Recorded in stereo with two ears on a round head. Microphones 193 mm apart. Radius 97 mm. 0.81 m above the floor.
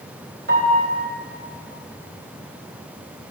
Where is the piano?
55° right (ahead or behind), 4 m.